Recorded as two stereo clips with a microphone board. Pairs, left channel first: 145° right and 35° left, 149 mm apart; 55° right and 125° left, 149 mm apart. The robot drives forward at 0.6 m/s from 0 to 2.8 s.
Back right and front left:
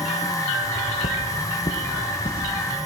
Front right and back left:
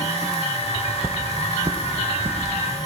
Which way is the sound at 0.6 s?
160° right.